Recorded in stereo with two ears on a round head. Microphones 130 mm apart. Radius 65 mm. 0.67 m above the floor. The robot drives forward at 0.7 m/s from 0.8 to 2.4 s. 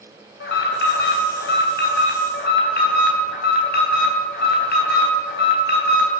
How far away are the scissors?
No scissors in this recording.